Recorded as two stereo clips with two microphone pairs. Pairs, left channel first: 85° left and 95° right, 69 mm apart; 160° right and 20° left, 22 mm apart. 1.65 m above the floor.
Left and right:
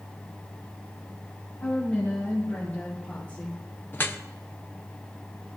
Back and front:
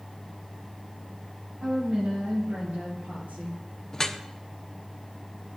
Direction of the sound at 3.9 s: 140° left.